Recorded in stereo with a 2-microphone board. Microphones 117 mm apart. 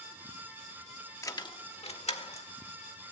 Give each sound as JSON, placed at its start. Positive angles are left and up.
{"t": 1.2, "sound": "keys jangling", "side_deg": 25, "distance_m": 0.7}